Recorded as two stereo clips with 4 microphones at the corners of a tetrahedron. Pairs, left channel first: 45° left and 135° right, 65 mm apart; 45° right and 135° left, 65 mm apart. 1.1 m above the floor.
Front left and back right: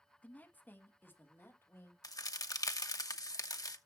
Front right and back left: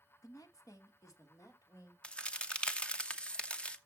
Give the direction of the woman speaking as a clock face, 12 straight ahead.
1 o'clock.